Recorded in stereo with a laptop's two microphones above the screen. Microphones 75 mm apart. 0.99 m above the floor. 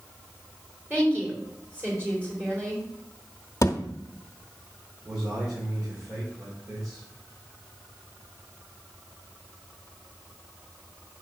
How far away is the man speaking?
About 3.5 m.